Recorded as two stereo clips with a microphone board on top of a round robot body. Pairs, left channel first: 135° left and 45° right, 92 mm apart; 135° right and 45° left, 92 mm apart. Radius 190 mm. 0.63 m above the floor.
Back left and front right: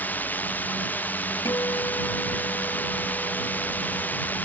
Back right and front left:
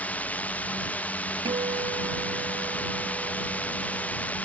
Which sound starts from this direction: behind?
A drone, at 0.0 s.